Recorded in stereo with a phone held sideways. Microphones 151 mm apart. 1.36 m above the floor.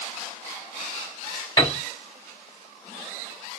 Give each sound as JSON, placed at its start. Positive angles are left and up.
{"t": 1.6, "sound": "a piano", "side_deg": 25, "distance_m": 2.5}